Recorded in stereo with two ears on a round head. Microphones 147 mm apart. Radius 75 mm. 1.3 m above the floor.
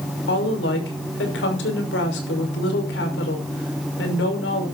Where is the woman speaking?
85° left, 5.5 m.